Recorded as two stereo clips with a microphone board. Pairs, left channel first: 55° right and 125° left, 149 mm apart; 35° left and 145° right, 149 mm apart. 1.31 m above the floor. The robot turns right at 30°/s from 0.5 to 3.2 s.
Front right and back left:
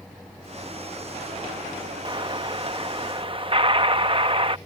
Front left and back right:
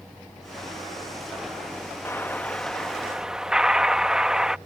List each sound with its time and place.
2.0 s an explosion: 95° left; by 4.6 s 130° left